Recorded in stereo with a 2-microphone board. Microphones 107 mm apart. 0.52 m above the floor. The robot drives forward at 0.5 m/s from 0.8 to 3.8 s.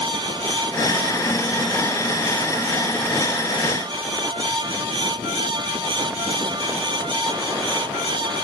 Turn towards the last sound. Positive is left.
No sound to turn to.